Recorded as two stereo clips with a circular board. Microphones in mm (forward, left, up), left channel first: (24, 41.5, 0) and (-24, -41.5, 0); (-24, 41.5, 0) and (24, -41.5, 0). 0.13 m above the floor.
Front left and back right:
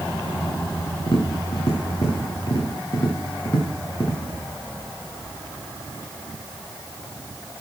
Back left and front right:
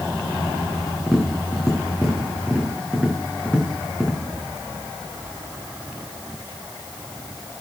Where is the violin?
No violin in this recording.